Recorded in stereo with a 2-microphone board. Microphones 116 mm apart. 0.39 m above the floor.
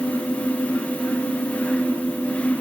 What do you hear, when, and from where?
Only background noise.